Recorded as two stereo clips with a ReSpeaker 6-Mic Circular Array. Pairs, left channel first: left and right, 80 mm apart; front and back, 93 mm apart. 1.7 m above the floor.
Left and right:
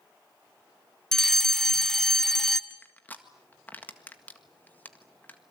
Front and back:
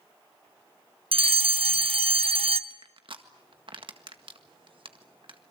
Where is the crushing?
160° left, 1.7 m.